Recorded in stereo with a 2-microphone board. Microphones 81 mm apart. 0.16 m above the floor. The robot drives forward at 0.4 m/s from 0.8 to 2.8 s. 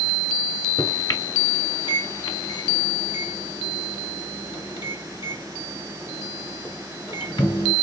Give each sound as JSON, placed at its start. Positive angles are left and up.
{"t": 0.8, "sound": "a microwave", "side_deg": 50, "distance_m": 1.6}